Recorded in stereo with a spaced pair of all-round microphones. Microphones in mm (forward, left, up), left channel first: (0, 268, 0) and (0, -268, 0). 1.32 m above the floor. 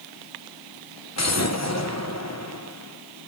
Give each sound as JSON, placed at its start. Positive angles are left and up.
{"t": 1.2, "sound": "an explosion", "side_deg": 30, "distance_m": 1.2}